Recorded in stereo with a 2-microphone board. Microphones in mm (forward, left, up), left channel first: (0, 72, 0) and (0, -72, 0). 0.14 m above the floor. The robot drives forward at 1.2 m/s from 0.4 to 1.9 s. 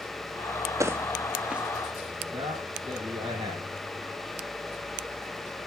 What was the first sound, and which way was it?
Footsteps, 20° right (ahead or behind).